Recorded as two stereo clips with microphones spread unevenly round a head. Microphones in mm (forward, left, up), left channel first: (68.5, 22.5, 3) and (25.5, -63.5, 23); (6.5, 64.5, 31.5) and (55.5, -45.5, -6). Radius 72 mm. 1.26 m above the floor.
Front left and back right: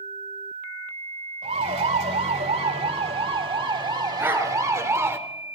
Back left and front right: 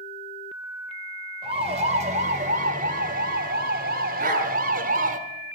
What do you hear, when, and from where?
1.4 s a siren: 120° right, 3.5 m; by 5.2 s 55° right, 3 m
4.2 s a dog barking: 50° right, 6 m